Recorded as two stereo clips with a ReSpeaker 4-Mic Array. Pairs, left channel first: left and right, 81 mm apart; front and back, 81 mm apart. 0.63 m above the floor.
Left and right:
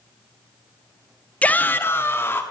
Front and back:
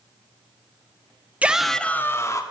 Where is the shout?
135° left, 0.8 m; by 2.4 s 35° left, 1.3 m.